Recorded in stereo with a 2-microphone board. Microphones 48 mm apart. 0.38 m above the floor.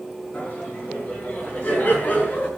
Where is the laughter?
30° left (ahead or behind), 6.5 m.